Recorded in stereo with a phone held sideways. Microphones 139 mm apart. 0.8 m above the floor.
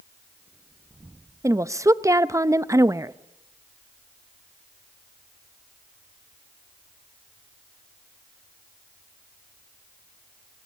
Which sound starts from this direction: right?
A woman speaking, at 1.4 s.